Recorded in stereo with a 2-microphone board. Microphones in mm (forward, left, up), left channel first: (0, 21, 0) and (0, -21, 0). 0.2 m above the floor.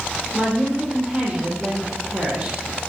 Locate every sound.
0.3 s a woman speaking: 20° right (ahead or behind), 6 m